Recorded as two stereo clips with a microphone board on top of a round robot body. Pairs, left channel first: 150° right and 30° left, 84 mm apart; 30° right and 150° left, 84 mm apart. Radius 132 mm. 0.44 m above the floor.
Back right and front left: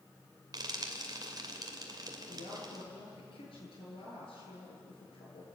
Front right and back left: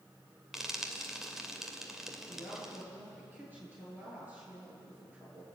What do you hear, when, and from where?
0.5 s frying: 65° left, 2.5 m
2.3 s a woman speaking: 140° right, 9 m